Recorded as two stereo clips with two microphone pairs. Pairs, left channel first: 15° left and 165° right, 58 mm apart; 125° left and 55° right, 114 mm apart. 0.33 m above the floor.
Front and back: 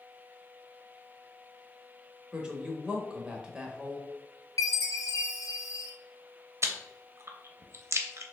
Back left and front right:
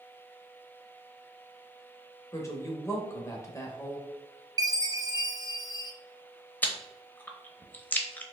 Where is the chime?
5° right, 0.6 m.